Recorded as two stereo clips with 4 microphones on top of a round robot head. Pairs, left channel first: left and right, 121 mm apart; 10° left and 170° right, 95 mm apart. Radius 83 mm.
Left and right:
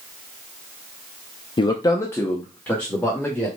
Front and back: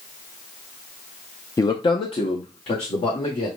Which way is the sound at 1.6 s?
60° left.